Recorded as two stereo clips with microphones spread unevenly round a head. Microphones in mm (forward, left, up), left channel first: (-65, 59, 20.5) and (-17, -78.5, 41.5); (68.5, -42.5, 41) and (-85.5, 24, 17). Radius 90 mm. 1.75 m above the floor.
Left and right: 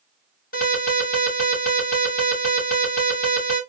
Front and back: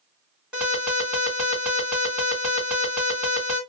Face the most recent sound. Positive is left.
turn(degrees=70)